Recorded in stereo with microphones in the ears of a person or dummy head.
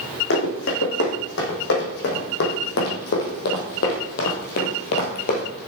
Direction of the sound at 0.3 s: 70° left (ahead or behind).